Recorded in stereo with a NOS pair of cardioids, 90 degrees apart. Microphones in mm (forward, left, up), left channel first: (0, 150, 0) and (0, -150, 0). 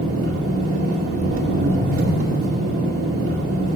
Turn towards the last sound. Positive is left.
turn(degrees=-50)